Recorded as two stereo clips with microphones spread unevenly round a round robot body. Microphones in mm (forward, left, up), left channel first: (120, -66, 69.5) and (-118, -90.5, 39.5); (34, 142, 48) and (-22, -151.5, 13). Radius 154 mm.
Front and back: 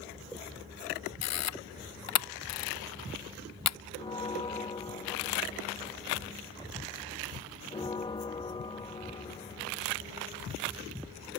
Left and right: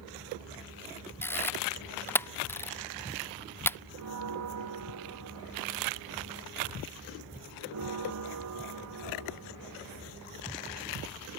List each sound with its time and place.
1.2 s a camera shutter: 5° right
4.0 s a bell: 65° right